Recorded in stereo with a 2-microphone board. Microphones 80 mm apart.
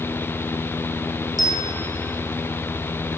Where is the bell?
55° right (ahead or behind), 0.6 m.